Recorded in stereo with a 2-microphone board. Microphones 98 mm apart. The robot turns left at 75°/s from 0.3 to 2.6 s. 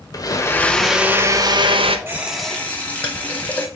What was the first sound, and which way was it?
A blender, 40° left.